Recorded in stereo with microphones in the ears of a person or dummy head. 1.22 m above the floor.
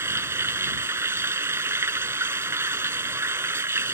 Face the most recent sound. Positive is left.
turn(degrees=-10)  # may be behind; listen again after turning